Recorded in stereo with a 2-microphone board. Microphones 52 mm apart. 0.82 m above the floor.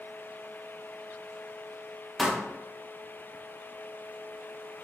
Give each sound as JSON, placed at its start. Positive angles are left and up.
{"t": 2.2, "sound": "a pop", "side_deg": 0, "distance_m": 0.7}